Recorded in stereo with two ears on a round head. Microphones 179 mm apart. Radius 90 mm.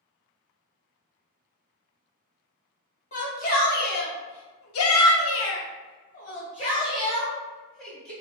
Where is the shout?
40° left (ahead or behind), 1.5 m; by 8.1 s 10° left (ahead or behind), 1.8 m.